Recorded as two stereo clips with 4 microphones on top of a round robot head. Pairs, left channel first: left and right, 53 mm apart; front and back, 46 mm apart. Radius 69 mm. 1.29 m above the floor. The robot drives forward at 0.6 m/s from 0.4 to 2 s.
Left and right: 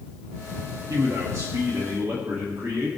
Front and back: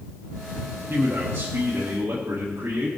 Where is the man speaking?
125° right, 2 m; by 2.9 s 140° right, 2.5 m.